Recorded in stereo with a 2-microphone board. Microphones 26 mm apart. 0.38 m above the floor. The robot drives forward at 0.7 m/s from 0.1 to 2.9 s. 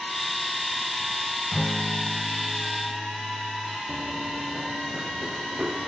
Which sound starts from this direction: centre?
A guitar, at 1.5 s.